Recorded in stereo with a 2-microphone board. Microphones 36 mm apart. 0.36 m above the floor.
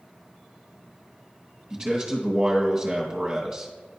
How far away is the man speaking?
About 3 m.